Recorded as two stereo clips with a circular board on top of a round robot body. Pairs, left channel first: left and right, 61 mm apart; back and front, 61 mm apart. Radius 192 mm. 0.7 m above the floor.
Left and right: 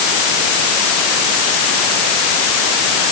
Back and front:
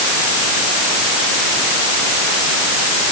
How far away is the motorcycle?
I don't hear a motorcycle.